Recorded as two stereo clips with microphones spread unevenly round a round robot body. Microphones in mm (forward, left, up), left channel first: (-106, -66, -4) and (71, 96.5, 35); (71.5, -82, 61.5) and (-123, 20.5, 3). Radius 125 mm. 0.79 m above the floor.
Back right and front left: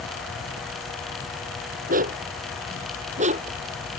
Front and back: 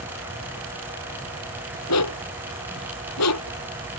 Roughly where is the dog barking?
Ahead.